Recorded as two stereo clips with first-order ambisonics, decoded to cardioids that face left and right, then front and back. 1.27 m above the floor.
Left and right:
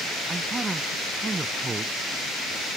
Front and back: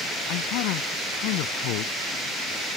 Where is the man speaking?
15° right.